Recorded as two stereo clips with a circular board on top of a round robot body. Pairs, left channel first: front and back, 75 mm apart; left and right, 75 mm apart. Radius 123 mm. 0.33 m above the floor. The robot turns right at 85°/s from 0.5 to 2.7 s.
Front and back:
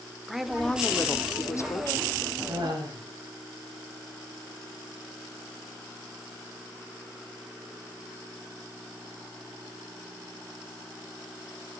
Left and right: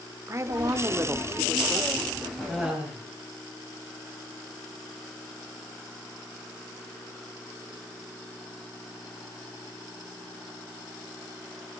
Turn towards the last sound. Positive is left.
turn(degrees=-170)